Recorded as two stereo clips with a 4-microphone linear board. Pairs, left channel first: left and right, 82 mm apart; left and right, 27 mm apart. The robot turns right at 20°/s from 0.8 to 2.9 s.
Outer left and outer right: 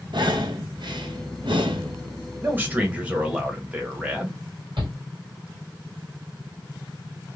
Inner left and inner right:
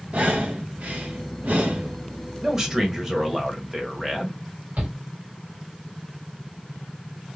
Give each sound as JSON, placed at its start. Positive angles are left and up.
{"t": 0.1, "sound": "breathing", "side_deg": -65, "distance_m": 0.6}
{"t": 2.4, "sound": "a man speaking", "side_deg": -25, "distance_m": 1.0}
{"t": 4.8, "sound": "a shout", "side_deg": -70, "distance_m": 1.6}